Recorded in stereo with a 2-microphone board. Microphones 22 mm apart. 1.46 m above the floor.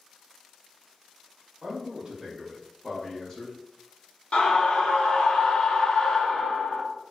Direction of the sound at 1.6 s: 35° right (ahead or behind).